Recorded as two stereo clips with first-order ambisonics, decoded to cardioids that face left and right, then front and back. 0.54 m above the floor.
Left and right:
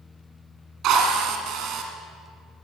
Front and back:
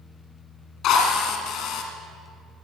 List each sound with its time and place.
0.8 s a drill: 45° right, 1.9 m